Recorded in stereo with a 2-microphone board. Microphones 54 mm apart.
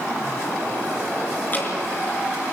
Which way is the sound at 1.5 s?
35° left (ahead or behind).